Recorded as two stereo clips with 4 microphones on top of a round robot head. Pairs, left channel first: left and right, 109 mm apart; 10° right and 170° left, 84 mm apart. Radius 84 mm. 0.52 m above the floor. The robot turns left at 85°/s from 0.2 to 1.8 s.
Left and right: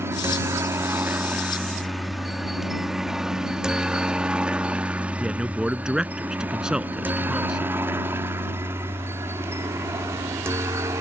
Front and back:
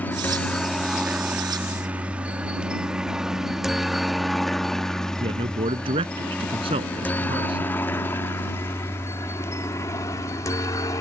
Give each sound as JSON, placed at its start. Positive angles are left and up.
{"t": 0.0, "sound": "a helicopter", "azimuth_deg": -55}
{"t": 5.2, "sound": "a man speaking", "azimuth_deg": -175}